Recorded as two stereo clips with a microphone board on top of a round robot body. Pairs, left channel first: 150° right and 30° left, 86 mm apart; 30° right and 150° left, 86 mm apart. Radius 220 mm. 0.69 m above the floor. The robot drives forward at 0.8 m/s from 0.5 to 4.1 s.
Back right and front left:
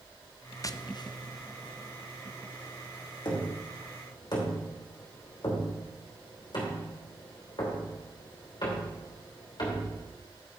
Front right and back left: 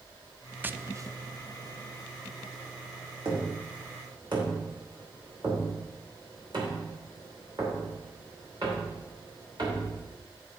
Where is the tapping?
155° right, 0.6 m; by 10.2 s straight behind, 3 m.